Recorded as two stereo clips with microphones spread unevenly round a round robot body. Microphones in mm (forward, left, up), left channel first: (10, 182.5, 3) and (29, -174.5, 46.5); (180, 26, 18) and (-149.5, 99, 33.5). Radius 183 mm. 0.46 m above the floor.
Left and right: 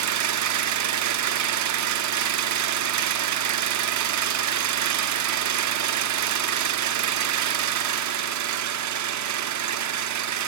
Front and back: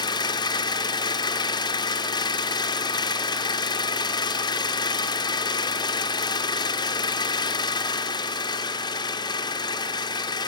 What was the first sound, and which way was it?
An engine running, 80° right.